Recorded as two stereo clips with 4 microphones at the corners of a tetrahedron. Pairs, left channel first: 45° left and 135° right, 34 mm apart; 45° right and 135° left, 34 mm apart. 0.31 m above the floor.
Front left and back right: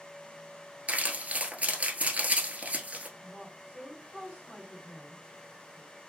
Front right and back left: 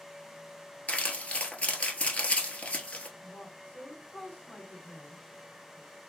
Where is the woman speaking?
25° right, 2.5 m.